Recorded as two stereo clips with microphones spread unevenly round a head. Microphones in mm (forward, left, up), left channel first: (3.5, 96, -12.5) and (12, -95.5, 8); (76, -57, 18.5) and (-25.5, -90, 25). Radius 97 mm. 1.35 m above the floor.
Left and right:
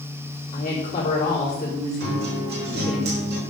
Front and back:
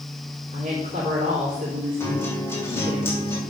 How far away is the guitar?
About 3.5 m.